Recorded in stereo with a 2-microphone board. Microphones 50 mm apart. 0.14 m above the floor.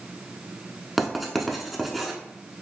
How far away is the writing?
About 0.5 m.